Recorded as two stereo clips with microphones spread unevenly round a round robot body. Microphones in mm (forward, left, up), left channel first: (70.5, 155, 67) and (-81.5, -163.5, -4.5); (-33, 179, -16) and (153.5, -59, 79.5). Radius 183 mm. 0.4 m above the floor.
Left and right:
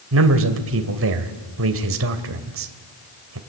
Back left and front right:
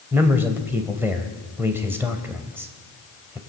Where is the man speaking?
145° right, 2 m.